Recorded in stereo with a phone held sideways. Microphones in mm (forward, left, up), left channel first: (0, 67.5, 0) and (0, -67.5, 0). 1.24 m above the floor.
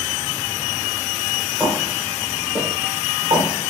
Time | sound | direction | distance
1.6 | footsteps | 10° right (ahead or behind) | 1.9 m